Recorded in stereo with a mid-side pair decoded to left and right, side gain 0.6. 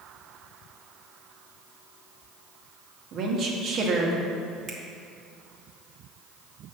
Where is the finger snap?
50° right, 1.6 m.